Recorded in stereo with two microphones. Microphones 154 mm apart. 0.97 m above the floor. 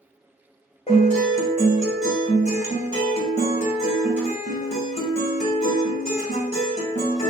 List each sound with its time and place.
0.9 s a guitar: 45° left (ahead or behind), 1.3 m